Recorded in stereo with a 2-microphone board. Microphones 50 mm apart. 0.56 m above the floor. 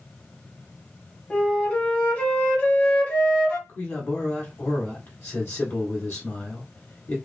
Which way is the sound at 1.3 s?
30° left (ahead or behind).